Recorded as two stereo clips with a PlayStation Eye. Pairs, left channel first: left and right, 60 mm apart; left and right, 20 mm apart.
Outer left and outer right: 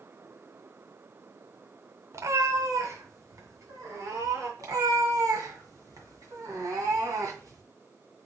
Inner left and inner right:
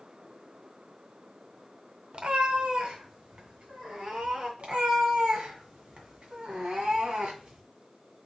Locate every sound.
2.1 s a cat meowing: 55° right (ahead or behind), 0.7 m; by 4.5 s 65° right (ahead or behind), 3.5 m
4.6 s a cat meowing: 75° right (ahead or behind), 1.8 m